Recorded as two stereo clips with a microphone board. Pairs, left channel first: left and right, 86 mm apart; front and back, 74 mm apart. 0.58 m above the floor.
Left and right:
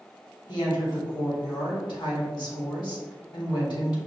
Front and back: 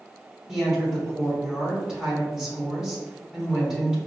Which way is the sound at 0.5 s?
100° left.